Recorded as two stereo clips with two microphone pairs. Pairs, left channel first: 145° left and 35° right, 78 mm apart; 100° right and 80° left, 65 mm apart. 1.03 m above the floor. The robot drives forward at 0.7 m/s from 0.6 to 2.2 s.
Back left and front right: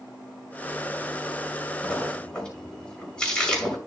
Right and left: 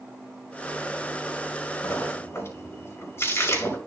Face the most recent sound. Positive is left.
turn(degrees=-140)